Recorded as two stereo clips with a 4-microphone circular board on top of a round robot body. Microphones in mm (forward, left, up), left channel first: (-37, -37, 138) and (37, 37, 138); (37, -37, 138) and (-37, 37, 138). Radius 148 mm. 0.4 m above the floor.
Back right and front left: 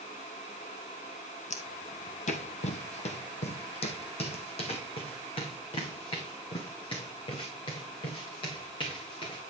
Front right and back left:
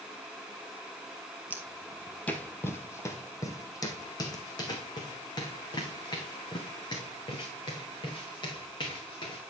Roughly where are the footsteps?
Behind right.